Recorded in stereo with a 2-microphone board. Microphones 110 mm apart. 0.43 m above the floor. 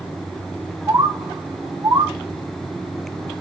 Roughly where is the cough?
No cough in this recording.